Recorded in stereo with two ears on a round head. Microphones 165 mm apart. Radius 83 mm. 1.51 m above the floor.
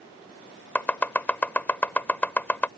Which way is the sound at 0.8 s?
10° left (ahead or behind).